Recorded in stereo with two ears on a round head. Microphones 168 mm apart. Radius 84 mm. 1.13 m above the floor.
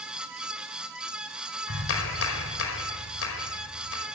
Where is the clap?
85° left, 5 m.